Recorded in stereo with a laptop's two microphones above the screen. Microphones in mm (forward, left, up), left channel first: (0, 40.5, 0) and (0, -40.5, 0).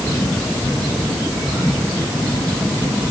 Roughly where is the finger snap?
No finger snap in this recording.